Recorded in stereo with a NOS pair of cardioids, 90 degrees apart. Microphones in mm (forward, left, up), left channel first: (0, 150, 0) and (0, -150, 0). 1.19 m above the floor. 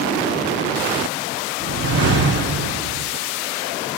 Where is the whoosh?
50° right, 4 m.